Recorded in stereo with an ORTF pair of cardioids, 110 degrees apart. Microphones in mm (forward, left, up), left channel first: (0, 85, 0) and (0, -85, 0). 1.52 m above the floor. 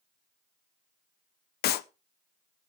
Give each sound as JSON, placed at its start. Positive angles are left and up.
{"t": 1.6, "sound": "a clap", "azimuth_deg": 70, "distance_m": 0.7}